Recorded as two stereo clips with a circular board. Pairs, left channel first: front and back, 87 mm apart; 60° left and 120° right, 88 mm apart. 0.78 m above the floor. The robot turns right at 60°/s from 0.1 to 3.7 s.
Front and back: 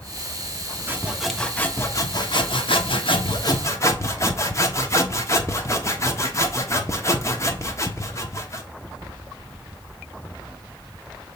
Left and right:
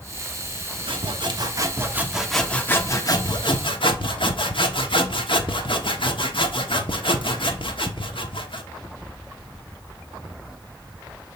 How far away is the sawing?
About 1.1 m.